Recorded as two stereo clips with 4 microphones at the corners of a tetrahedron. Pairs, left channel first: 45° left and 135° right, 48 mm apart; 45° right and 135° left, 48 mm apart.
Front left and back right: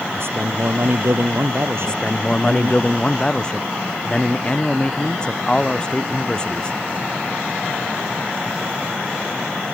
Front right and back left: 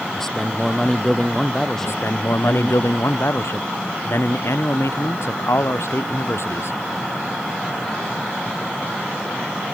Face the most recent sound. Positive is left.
turn(degrees=-25)